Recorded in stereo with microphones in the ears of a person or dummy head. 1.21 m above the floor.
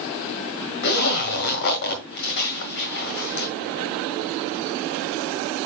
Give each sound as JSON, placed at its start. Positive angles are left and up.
{"t": 0.8, "sound": "a zipper", "side_deg": 55, "distance_m": 1.7}